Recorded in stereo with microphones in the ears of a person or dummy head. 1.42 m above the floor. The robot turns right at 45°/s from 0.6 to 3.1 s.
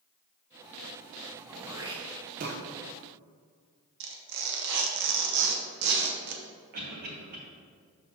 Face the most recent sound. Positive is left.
turn(degrees=-50)  # may be behind; listen again after turning